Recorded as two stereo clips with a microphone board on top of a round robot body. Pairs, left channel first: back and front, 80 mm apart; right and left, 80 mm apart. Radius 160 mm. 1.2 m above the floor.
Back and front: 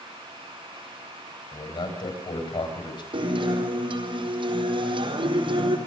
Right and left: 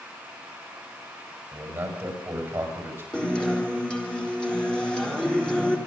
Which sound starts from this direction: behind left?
A man speaking, at 1.5 s.